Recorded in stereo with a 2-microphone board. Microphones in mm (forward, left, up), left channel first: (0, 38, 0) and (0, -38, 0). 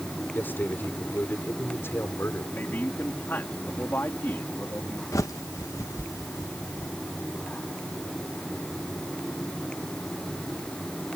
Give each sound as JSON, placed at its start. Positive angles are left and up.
{"t": 0.3, "sound": "a man speaking", "side_deg": 25}
{"t": 2.5, "sound": "a man speaking", "side_deg": 30}
{"t": 5.1, "sound": "a bird", "side_deg": 45}